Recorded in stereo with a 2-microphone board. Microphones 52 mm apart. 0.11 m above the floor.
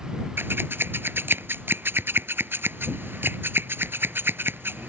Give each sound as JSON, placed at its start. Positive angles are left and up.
{"t": 0.4, "sound": "scissors", "side_deg": -45}